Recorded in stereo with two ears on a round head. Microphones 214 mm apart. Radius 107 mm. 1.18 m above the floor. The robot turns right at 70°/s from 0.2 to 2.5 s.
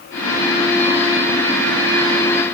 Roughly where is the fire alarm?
No fire alarm in this recording.